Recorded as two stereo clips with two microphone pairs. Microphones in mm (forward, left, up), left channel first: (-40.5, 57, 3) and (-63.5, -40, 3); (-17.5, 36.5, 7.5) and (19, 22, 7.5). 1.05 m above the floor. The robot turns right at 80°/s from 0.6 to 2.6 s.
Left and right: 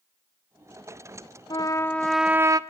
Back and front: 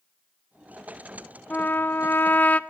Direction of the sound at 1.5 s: 115° left.